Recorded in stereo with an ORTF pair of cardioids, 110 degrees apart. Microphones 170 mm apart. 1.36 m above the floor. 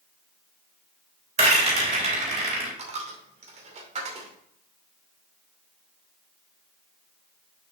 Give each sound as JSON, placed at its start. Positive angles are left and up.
{"t": 1.4, "sound": "a rattle", "azimuth_deg": -40, "distance_m": 3.5}
{"t": 2.8, "sound": "a dropped coin", "azimuth_deg": -40, "distance_m": 2.5}